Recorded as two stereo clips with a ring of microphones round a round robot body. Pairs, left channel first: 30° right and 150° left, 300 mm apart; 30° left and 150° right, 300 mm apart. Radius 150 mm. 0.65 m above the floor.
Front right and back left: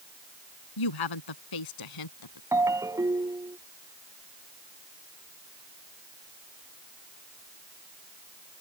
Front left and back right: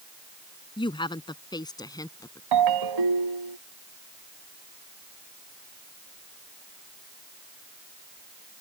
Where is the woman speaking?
45° right; by 2.4 s 50° right.